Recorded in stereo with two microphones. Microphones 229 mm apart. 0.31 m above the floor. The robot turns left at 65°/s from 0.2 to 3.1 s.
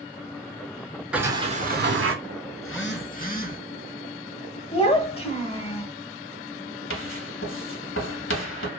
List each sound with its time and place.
1.1 s a sliding door: 5° right, 0.5 m; by 2.1 s 70° right, 0.5 m
2.6 s a phone buzzing: 75° left, 0.5 m; by 3.6 s 40° left, 0.5 m
4.7 s a child speaking: 25° left (ahead or behind), 0.7 m
6.9 s writing: 60° left (ahead or behind), 0.7 m